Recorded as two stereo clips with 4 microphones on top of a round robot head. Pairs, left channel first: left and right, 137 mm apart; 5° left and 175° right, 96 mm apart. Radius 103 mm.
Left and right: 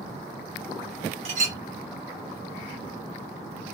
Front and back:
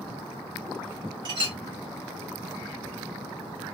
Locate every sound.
1.2 s a clink: 130° right, 1.1 m